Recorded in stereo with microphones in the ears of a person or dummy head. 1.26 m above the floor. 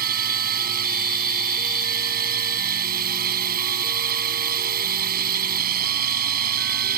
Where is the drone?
50° right (ahead or behind).